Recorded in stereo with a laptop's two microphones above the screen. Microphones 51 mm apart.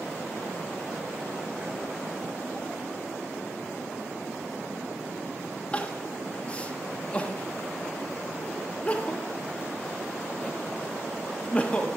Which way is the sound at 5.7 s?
25° left (ahead or behind).